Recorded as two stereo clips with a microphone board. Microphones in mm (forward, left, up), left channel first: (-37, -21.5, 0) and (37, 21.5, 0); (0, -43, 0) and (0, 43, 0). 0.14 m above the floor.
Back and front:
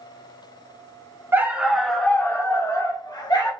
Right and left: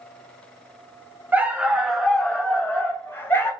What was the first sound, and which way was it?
A dog barking, 50° left.